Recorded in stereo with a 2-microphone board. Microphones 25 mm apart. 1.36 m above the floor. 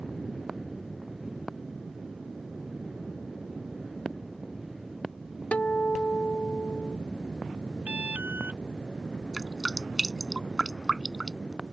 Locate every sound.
5.5 s a guitar: 85° left
7.9 s an alarm: 75° right (ahead or behind)
9.3 s dripping: 10° right (ahead or behind)